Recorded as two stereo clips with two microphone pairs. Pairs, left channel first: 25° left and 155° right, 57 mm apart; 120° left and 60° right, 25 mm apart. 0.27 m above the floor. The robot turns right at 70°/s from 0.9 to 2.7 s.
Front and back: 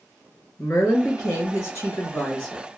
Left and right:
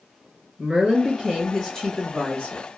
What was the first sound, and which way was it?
A woman speaking, 5° right.